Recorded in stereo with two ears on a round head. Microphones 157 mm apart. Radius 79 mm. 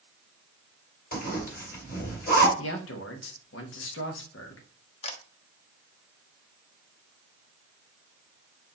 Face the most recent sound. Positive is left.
turn(degrees=35)  # may be behind; listen again after turning